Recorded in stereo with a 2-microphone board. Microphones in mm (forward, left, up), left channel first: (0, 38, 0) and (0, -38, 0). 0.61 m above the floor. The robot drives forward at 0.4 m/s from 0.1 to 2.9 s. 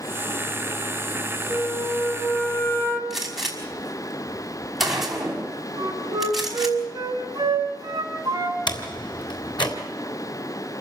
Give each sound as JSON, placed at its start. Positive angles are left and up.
{"t": 1.5, "sound": "a flute", "side_deg": 25, "distance_m": 3.0}
{"t": 3.1, "sound": "a gunshot", "side_deg": -5, "distance_m": 5.5}
{"t": 5.8, "sound": "a flute", "side_deg": -50, "distance_m": 6.0}
{"t": 8.7, "sound": "a door slam", "side_deg": 80, "distance_m": 3.5}